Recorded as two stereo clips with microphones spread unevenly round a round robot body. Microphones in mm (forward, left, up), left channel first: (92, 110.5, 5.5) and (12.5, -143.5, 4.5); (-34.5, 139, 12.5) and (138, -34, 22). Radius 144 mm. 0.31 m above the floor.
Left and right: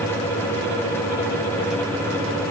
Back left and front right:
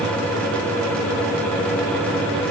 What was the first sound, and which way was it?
Only background noise.